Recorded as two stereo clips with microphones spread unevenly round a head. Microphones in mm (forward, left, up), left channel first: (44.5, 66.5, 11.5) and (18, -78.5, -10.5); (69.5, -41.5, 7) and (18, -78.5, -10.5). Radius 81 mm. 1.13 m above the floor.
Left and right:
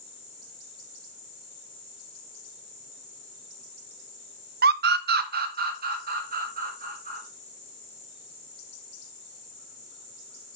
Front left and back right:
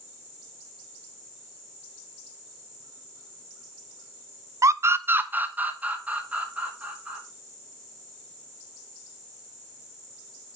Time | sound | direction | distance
4.6 | a scream | 120° right | 0.5 m